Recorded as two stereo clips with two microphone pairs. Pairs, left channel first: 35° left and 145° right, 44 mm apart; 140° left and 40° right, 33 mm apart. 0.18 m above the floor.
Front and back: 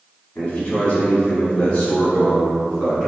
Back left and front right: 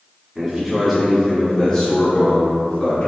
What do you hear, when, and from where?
0.3 s a man speaking: 5° left, 1.7 m; by 3.1 s 120° left, 2.5 m